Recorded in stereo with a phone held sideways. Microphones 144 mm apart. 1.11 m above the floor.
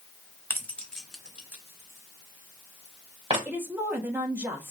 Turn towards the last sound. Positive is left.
turn(degrees=-15)  # may be behind; listen again after turning